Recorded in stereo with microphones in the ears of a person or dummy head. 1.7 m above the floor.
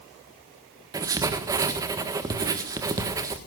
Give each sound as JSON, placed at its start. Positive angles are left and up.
{"t": 0.9, "sound": "writing", "side_deg": -15, "distance_m": 1.6}